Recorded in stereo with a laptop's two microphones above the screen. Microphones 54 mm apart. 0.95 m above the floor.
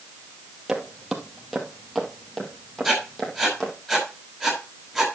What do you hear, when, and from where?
0.7 s footsteps: 10° right (ahead or behind), 1.5 m; by 3.7 s 15° left (ahead or behind), 2.5 m
2.8 s writing: 5° left (ahead or behind), 5.5 m